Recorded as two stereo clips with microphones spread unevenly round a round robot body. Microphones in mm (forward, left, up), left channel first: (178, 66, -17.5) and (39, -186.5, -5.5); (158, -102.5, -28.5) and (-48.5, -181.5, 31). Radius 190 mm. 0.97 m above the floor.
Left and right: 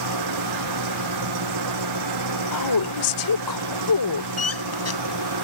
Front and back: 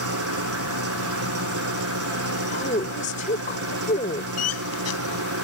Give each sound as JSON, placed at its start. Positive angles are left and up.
{"t": 0.0, "sound": "an engine running", "azimuth_deg": -155}
{"t": 2.5, "sound": "a woman speaking", "azimuth_deg": 90}
{"t": 4.4, "sound": "a squeak", "azimuth_deg": 25}